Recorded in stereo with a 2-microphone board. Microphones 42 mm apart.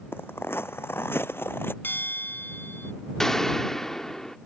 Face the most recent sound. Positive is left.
turn(degrees=10)  # may be behind; listen again after turning